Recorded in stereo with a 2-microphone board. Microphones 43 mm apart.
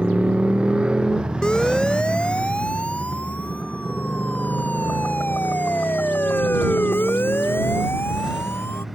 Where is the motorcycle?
30° right (ahead or behind); by 8.9 s 5° right (ahead or behind).